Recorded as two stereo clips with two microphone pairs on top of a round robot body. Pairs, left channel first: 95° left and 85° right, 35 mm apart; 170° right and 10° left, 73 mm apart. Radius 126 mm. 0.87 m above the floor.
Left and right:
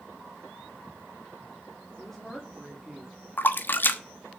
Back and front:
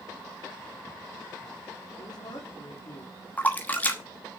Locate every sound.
2.0 s a woman speaking: 175° left, 3 m; by 3.1 s 160° right, 2.5 m
3.4 s a splash: 125° left, 1.2 m